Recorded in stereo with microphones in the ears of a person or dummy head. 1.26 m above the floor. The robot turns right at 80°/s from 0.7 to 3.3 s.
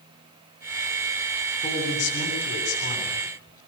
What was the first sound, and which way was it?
A woman speaking, 30° left.